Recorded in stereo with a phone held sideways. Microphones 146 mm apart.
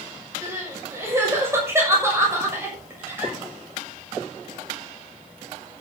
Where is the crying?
15° right (ahead or behind), 6.5 m.